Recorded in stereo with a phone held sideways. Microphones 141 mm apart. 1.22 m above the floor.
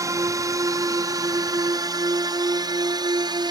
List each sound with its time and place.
0.0 s a drone: 25° right (ahead or behind); by 3.5 s 30° right (ahead or behind)